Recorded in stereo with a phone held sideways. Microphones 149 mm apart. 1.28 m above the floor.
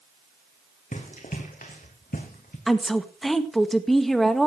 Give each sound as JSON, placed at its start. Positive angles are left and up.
{"t": 0.9, "sound": "running footsteps", "side_deg": 60, "distance_m": 4.0}
{"t": 2.7, "sound": "a woman speaking", "side_deg": 0, "distance_m": 1.9}